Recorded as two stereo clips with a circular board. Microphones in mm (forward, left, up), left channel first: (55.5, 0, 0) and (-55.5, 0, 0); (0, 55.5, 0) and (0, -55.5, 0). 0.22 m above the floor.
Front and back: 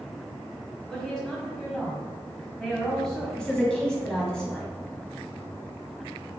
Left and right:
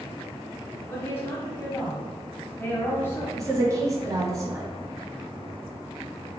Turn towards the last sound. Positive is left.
turn(degrees=-75)